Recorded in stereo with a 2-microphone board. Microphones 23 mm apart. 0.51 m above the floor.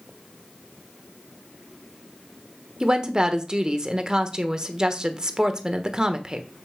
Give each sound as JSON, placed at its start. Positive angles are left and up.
{"t": 2.8, "sound": "a woman speaking", "side_deg": -30, "distance_m": 1.2}